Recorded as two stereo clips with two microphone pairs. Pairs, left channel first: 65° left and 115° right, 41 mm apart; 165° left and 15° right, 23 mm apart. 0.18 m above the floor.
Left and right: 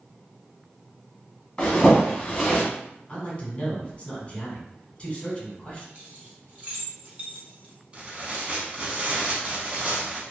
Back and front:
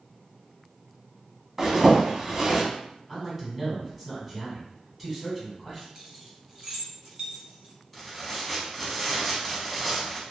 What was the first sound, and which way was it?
A zipper, 25° left.